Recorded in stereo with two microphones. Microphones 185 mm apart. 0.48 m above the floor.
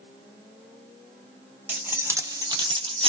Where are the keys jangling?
10° right (ahead or behind), 0.9 m; by 3.1 s 30° right (ahead or behind), 0.6 m.